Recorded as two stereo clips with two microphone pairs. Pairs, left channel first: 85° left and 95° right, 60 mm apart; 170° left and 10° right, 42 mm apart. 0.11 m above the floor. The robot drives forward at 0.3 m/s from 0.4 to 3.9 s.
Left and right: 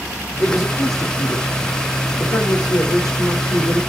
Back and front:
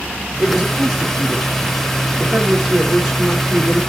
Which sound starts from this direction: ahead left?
A man speaking, at 0.4 s.